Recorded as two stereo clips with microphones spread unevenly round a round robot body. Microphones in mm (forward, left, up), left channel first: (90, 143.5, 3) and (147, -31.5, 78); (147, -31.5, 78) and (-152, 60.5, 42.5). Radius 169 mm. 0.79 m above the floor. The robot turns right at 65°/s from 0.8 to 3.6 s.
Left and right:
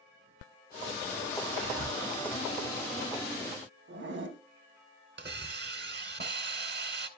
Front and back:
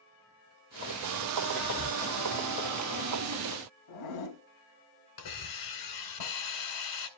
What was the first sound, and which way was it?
Whispering, 105° right.